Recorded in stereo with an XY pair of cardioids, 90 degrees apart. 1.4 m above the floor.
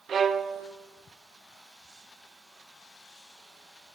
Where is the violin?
60° right, 0.8 m.